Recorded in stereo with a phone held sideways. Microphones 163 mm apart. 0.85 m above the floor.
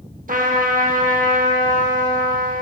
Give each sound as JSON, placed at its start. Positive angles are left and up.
{"t": 0.3, "sound": "a trumpet", "side_deg": -55, "distance_m": 0.7}